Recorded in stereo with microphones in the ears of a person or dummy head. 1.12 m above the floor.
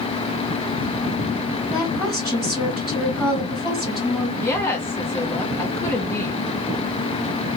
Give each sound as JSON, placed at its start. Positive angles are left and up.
{"t": 1.7, "sound": "a woman speaking", "side_deg": -5, "distance_m": 1.7}
{"t": 4.4, "sound": "a woman speaking", "side_deg": 10, "distance_m": 0.7}